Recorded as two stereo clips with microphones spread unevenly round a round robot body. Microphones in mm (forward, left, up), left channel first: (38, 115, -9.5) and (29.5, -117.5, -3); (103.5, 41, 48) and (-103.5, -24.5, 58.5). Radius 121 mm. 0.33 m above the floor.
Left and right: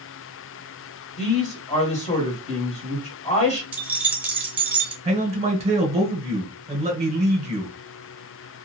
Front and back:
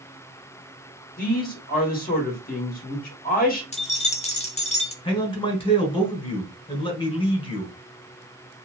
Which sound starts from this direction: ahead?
Keys jangling, at 3.7 s.